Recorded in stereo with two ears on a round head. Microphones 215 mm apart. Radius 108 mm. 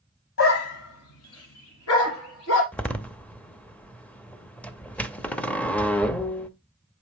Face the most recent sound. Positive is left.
turn(degrees=5)  # may be behind; listen again after turning